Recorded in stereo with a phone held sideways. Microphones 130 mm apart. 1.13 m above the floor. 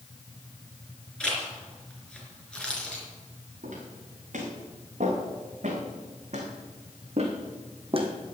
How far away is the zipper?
About 4.5 m.